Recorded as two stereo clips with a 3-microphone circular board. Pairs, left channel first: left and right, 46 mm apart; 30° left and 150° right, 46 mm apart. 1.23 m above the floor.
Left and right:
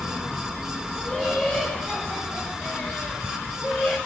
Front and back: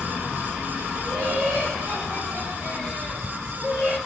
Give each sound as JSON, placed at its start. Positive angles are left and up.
{"t": 0.9, "sound": "laughter", "azimuth_deg": 160, "distance_m": 7.0}